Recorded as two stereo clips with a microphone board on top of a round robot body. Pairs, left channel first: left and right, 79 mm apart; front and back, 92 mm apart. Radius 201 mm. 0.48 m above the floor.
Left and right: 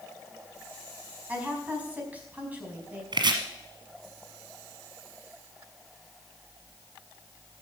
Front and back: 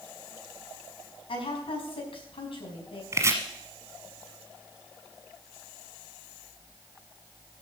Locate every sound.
1.3 s a woman speaking: 20° right, 5 m
3.1 s chopping: 120° right, 1.1 m